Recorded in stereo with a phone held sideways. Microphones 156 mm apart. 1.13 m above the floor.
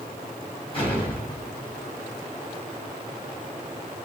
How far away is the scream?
No scream in this recording.